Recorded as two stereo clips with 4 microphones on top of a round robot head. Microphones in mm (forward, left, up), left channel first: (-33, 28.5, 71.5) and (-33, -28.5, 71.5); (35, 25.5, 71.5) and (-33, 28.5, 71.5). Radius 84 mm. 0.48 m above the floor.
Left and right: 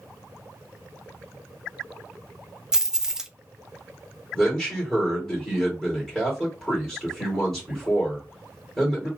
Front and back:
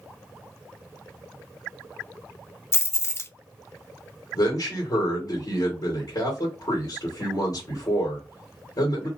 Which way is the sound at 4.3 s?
10° left.